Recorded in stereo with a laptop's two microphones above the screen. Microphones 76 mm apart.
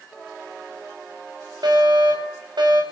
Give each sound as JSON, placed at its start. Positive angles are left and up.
{"t": 1.6, "sound": "a fire alarm", "side_deg": -75, "distance_m": 6.0}